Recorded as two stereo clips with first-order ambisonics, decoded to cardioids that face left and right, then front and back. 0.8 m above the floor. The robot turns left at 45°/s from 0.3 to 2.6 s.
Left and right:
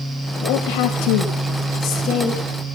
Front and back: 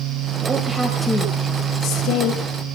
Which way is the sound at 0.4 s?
115° left.